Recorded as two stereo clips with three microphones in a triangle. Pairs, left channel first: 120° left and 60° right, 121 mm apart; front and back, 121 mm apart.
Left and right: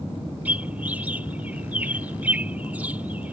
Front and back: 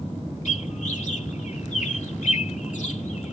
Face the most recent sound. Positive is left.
turn(degrees=20)